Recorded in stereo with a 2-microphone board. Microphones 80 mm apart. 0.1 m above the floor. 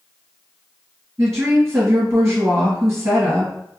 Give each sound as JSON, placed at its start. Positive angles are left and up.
{"t": 1.2, "sound": "a woman speaking", "side_deg": -35, "distance_m": 1.9}